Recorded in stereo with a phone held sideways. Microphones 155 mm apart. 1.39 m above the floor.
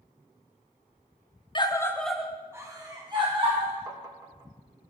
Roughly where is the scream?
Left.